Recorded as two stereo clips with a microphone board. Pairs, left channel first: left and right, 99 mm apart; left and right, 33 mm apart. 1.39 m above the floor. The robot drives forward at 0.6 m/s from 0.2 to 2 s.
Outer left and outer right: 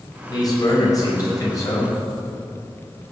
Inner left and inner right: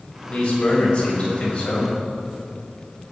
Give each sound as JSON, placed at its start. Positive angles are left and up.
{"t": 0.3, "sound": "a man speaking", "side_deg": 40, "distance_m": 5.5}